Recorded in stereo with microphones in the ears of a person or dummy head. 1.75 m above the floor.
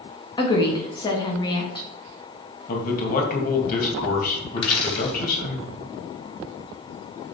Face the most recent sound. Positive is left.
turn(degrees=25)  # may be behind; listen again after turning